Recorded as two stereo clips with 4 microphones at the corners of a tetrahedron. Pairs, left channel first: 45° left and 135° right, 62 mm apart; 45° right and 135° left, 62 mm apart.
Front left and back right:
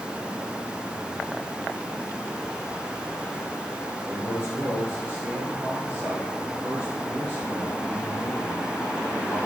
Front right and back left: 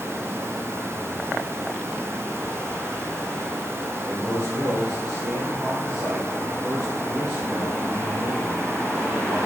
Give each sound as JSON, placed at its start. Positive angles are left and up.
{"t": 4.0, "sound": "a man speaking", "azimuth_deg": 155, "distance_m": 3.0}